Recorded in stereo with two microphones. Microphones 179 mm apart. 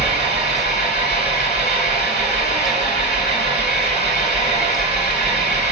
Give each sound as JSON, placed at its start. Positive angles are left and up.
{"t": 0.0, "sound": "an engine running", "side_deg": 75, "distance_m": 2.5}